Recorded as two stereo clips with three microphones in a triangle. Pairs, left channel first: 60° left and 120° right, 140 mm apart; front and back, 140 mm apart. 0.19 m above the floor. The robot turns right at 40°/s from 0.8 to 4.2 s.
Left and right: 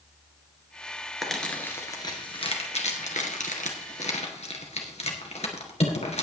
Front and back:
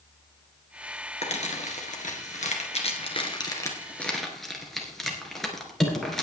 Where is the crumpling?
30° right, 2.5 m; by 6.2 s 90° left, 2.5 m.